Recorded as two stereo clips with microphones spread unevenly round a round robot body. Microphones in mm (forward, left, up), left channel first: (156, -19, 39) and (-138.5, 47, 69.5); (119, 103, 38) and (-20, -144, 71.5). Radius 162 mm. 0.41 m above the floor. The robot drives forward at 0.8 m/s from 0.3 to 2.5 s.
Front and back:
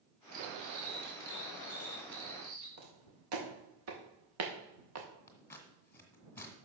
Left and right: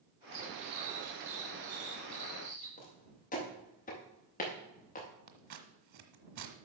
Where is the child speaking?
I don't hear a child speaking.